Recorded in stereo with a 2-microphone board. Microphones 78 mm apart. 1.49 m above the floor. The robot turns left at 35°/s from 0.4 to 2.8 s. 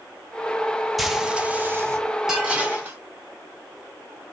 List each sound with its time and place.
1.0 s frying: straight ahead, 1.2 m; by 2.0 s 35° right, 1.2 m
2.3 s dishes clattering: 5° right (ahead or behind), 3 m; by 3.0 s 25° right (ahead or behind), 3 m